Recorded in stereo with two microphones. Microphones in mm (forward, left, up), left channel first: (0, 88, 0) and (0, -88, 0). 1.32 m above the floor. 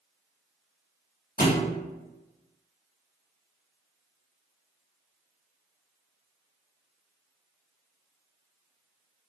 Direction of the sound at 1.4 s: 60° left (ahead or behind).